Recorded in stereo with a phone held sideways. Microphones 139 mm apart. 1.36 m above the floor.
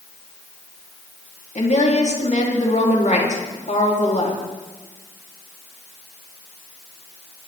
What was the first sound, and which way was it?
A woman speaking, 60° left (ahead or behind).